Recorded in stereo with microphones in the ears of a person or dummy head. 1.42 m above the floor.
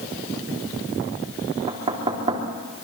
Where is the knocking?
30° right (ahead or behind), 3 m.